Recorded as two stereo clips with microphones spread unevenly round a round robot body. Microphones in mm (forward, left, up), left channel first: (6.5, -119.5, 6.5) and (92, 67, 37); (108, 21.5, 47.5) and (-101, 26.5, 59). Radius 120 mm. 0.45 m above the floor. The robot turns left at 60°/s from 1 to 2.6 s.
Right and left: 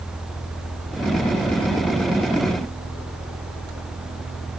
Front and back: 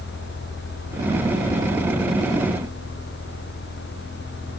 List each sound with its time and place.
Only background noise.